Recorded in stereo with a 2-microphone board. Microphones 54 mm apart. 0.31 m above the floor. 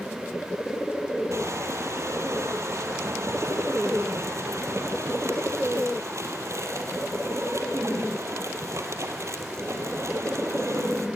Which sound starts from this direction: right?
Crushing, at 1.3 s.